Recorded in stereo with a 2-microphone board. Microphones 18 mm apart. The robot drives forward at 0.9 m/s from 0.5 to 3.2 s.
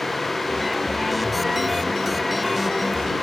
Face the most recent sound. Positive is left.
No sound to turn to.